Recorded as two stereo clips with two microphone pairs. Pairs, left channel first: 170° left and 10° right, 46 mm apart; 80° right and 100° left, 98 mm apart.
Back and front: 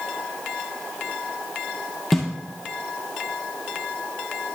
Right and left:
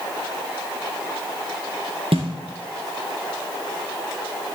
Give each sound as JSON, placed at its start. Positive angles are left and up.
{"t": 2.1, "sound": "a snare drum", "azimuth_deg": 90, "distance_m": 2.5}